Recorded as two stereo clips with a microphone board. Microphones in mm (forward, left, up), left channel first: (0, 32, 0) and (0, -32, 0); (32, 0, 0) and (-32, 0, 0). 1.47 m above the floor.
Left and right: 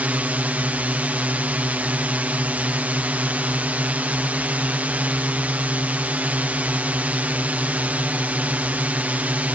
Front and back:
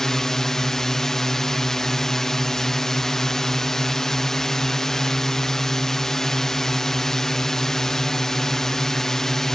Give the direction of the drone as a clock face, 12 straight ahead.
2 o'clock.